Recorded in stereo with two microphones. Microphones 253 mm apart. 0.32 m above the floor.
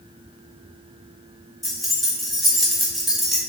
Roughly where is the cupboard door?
No cupboard door in this recording.